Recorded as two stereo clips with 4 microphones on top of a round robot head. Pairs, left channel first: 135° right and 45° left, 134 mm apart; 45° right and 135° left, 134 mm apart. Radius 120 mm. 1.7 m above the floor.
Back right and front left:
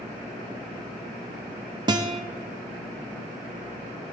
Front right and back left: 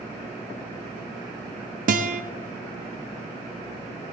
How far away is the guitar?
About 0.7 m.